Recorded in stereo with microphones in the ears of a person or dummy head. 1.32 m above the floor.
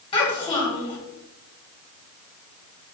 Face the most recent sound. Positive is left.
turn(degrees=30)  # may be behind; listen again after turning